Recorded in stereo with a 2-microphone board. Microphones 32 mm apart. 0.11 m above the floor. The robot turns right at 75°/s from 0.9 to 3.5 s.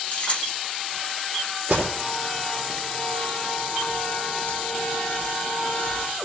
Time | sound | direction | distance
0.1 | keys jangling | 40° left (ahead or behind) | 1.6 m
1.7 | an alarm | 65° right (ahead or behind) | 4.5 m